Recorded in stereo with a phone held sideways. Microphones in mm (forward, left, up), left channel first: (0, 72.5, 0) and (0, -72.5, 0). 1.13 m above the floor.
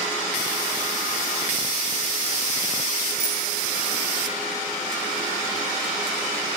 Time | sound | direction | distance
3.2 | a bicycle bell | 50° right (ahead or behind) | 9.5 m